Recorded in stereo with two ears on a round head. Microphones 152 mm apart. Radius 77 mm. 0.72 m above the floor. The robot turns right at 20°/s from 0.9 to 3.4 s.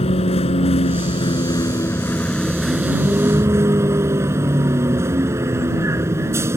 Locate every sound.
0.0 s a vehicle: 145° left; by 6.6 s 165° right